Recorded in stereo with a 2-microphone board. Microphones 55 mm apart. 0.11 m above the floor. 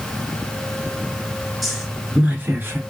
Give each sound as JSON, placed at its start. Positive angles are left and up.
{"t": 1.6, "sound": "a woman speaking", "side_deg": 0, "distance_m": 1.2}